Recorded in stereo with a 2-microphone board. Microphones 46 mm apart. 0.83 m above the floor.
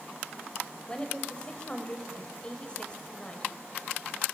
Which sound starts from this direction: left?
A woman speaking, at 0.9 s.